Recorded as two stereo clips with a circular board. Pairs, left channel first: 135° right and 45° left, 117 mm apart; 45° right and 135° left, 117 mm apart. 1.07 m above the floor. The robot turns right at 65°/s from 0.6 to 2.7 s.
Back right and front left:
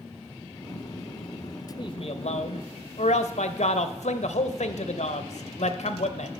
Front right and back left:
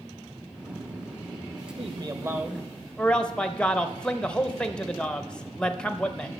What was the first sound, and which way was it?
A man speaking, 175° left.